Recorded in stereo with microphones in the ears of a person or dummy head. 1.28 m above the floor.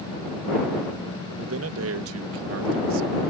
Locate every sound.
1.4 s a man speaking: 80° right; by 3.2 s 70° right (ahead or behind)